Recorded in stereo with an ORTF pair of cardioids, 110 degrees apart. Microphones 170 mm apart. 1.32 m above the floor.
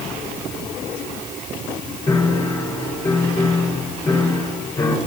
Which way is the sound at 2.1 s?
25° left.